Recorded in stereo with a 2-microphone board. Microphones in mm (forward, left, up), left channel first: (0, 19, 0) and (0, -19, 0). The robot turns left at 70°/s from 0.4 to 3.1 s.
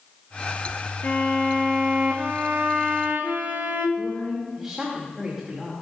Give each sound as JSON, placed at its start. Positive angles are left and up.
{"t": 1.0, "sound": "a violin", "azimuth_deg": 55, "distance_m": 2.0}
{"t": 4.0, "sound": "a woman speaking", "side_deg": -10, "distance_m": 2.5}